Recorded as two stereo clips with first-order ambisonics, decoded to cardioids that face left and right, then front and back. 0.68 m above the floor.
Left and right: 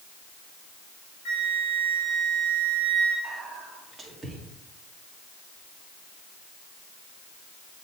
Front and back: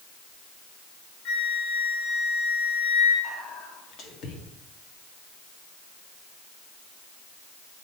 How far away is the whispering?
About 1.6 m.